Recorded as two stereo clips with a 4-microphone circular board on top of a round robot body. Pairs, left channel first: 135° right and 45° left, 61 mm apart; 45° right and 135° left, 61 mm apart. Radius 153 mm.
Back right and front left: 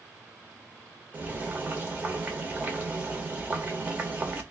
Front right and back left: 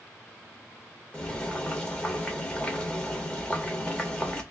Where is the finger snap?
I don't hear a finger snap.